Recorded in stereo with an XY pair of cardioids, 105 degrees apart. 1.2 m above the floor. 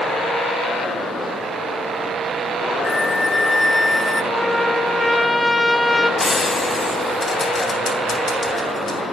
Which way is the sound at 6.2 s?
30° left.